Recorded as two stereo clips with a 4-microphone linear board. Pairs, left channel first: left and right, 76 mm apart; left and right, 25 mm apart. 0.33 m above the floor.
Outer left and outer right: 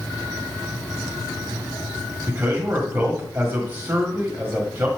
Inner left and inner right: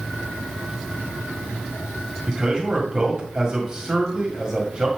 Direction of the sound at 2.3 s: 25° right (ahead or behind).